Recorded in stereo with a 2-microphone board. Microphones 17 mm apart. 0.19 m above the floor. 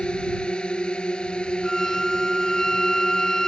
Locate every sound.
0.0 s a drone: 65° left (ahead or behind); by 3.5 s 60° left (ahead or behind)
1.6 s a violin: 25° left (ahead or behind)